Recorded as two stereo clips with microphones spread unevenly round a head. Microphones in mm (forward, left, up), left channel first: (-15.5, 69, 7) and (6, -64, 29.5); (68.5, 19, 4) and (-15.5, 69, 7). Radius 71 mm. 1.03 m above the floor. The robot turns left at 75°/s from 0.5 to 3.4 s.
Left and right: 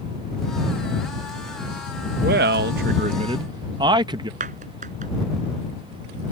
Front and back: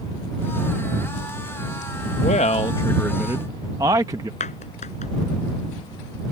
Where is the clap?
45° right.